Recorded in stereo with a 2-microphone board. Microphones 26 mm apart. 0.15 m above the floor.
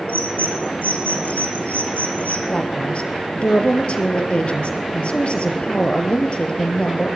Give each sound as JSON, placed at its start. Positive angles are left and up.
{"t": 0.1, "sound": "a bird", "side_deg": 80, "distance_m": 4.0}
{"t": 2.5, "sound": "a woman speaking", "side_deg": 55, "distance_m": 3.0}